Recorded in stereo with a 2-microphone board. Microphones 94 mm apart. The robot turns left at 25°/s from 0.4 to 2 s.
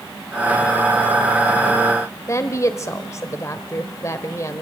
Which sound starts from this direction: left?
A woman speaking, at 2.3 s.